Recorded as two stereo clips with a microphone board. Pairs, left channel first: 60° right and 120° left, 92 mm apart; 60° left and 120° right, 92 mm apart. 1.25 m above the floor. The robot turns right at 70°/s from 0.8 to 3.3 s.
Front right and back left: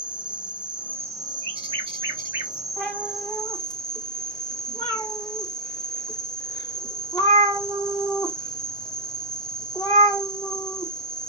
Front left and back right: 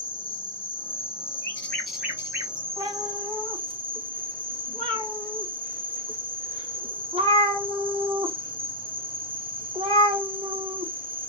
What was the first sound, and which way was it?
An insect, 40° left.